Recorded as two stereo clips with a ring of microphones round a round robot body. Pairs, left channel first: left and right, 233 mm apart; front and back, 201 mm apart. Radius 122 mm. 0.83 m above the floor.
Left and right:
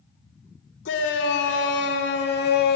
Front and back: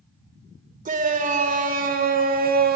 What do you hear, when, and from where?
0.8 s a shout: 130° left, 2.5 m; by 2.8 s 140° left, 1.4 m